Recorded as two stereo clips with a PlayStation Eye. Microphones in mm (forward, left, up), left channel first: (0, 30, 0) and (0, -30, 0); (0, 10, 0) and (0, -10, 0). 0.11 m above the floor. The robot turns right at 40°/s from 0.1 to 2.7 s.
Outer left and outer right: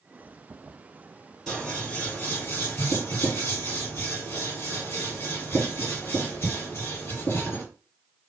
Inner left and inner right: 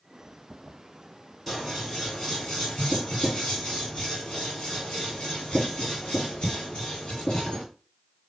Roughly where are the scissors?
Centre.